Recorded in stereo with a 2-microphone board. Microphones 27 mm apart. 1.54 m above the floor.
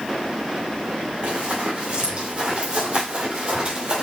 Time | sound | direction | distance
1.2 | running footsteps | 45° right (ahead or behind) | 3 m